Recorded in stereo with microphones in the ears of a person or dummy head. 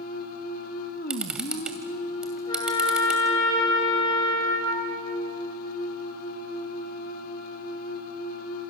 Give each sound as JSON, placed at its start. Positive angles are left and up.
{"t": 0.0, "sound": "a machine running", "side_deg": 50, "distance_m": 1.6}
{"t": 1.1, "sound": "a camera shutter", "side_deg": -10, "distance_m": 1.5}
{"t": 2.5, "sound": "a trumpet", "side_deg": 30, "distance_m": 5.0}